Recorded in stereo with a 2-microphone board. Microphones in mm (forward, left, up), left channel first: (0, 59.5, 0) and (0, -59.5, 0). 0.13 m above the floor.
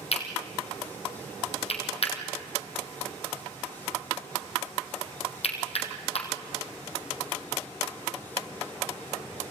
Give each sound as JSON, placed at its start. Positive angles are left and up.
{"t": 0.1, "sound": "cutlery clinking", "side_deg": 55, "distance_m": 3.0}